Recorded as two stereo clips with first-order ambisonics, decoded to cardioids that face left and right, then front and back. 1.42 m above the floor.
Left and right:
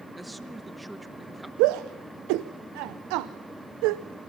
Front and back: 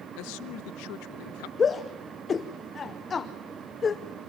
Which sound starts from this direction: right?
A shout, at 1.6 s.